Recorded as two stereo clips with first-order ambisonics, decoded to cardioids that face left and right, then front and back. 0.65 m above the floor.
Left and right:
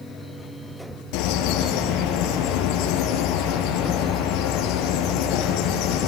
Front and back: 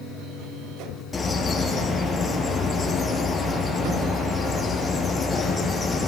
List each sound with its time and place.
1.1 s a bird: 75° left, 4 m